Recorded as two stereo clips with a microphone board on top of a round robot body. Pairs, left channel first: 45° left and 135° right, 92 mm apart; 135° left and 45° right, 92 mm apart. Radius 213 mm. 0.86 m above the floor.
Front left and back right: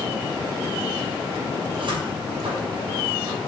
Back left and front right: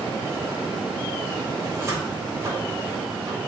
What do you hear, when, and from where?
1.6 s a cupboard door: 105° right, 5.5 m